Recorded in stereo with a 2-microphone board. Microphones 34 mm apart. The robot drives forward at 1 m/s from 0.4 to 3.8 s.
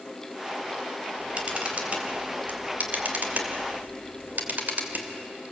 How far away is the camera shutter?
About 3.5 m.